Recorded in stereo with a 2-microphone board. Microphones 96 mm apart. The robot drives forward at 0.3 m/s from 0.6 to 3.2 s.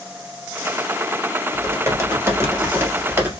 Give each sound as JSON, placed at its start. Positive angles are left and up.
{"t": 1.5, "sound": "typing on a keyboard", "side_deg": -30, "distance_m": 1.4}